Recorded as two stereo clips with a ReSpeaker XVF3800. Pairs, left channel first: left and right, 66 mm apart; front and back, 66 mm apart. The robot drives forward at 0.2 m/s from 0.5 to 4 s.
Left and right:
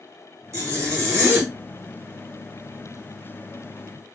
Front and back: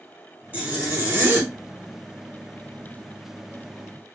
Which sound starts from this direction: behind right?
A zipper, at 0.5 s.